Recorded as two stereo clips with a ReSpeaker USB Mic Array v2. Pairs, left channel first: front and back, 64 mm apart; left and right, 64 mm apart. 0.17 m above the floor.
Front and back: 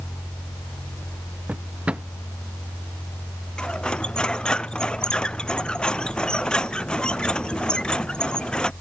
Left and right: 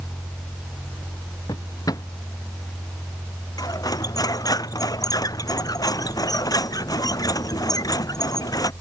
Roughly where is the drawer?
Left.